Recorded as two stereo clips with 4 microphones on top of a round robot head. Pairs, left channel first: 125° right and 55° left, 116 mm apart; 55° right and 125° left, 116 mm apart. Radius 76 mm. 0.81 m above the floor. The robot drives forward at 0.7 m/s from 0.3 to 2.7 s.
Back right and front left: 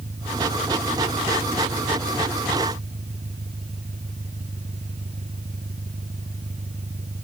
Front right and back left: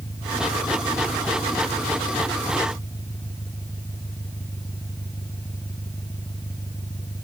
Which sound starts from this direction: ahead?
An engine running, at 0.0 s.